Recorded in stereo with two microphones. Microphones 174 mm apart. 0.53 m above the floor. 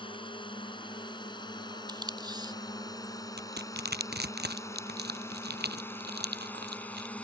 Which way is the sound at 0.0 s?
30° left (ahead or behind).